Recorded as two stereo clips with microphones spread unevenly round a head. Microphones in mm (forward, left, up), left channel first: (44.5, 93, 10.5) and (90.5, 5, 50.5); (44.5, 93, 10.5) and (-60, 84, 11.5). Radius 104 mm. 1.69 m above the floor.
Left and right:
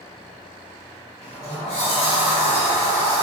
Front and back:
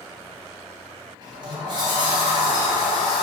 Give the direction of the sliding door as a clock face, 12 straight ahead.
7 o'clock.